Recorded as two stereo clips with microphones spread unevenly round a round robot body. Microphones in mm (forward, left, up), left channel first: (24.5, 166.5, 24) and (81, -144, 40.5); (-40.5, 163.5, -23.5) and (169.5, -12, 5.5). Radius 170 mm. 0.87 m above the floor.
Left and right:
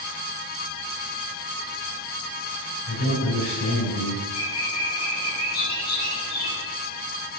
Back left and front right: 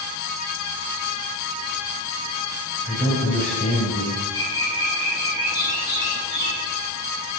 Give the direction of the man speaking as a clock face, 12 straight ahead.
10 o'clock.